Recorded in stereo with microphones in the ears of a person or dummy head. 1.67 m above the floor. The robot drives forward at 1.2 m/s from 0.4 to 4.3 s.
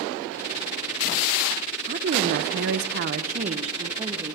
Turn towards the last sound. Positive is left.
turn(degrees=-25)  # may be behind; listen again after turning